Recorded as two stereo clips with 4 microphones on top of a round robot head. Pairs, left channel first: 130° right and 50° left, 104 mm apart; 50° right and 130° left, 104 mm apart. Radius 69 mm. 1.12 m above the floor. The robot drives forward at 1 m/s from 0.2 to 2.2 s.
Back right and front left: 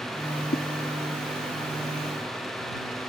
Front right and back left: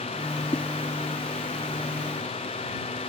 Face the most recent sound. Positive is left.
turn(degrees=-145)